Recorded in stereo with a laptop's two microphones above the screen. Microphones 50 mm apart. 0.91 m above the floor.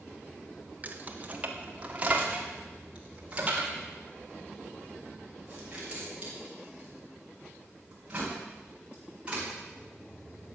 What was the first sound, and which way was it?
Keys jangling, 35° right (ahead or behind).